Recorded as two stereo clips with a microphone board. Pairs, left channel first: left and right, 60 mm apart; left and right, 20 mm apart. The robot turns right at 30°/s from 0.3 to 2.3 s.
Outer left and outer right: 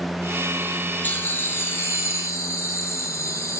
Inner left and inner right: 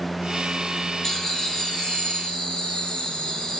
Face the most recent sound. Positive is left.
turn(degrees=75)